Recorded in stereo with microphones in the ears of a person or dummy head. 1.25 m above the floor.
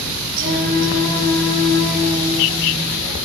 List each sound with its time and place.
0.4 s singing: 70° right (ahead or behind), 5 m